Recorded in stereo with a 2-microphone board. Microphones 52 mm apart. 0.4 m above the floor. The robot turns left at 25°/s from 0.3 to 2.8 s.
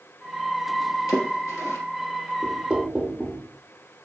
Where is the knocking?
20° right (ahead or behind), 0.6 m.